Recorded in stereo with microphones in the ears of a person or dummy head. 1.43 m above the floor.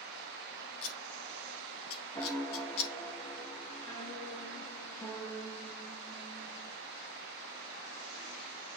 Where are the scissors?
70° left (ahead or behind), 1.2 m.